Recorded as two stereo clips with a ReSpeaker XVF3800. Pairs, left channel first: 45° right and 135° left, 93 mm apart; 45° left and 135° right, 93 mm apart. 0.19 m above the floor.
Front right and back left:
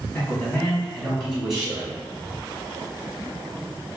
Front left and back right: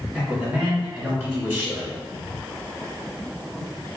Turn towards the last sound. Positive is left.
turn(degrees=-155)